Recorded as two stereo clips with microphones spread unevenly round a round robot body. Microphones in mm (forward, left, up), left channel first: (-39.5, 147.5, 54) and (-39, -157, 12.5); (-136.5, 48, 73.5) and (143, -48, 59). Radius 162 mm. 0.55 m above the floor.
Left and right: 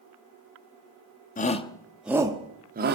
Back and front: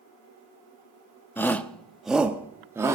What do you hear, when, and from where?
1.4 s a shout: 85° left, 0.9 m; by 2.9 s 90° right, 1.1 m